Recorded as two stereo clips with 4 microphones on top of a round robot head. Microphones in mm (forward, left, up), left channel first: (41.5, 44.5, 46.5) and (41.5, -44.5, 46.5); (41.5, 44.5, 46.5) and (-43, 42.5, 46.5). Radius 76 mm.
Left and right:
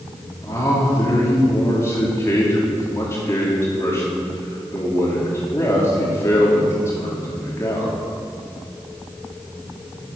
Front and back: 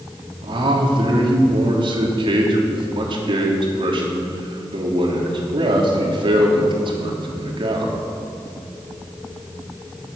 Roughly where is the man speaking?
Behind.